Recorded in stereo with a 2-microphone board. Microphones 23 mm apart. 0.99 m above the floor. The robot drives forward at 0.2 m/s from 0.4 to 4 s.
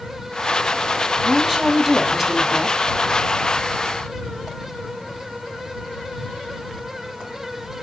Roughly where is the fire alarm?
No fire alarm in this recording.